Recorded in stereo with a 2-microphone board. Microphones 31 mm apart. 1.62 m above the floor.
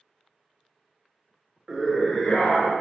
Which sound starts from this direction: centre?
A scream, at 1.7 s.